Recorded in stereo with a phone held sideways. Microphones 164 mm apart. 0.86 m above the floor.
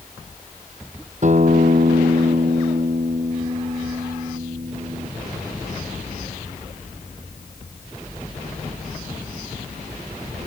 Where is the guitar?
50° right (ahead or behind).